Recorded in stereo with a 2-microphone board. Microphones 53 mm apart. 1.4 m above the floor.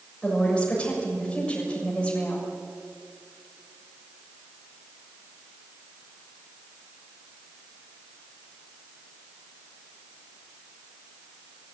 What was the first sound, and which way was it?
A woman speaking, 20° left (ahead or behind).